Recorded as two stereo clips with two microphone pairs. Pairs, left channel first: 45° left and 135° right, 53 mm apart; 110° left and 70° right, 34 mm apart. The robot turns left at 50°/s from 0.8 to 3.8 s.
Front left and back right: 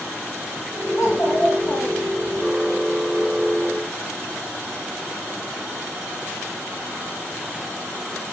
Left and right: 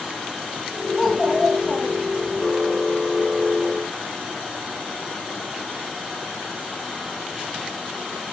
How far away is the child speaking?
About 6 m.